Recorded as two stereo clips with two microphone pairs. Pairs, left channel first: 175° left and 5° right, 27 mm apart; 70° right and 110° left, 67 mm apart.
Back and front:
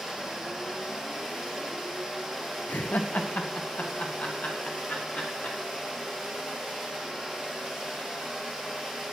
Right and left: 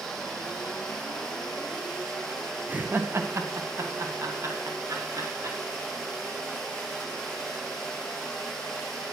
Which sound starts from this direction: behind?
Laughter, at 2.7 s.